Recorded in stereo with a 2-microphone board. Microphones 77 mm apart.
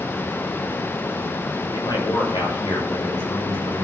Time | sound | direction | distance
1.7 | a man speaking | 70° left (ahead or behind) | 7 m